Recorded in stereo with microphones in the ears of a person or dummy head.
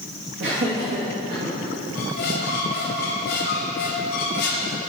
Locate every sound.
0.4 s laughter: 60° right (ahead or behind), 2 m; by 1.5 s 35° right (ahead or behind), 2.5 m
1.9 s a squeak: 50° left (ahead or behind), 1.5 m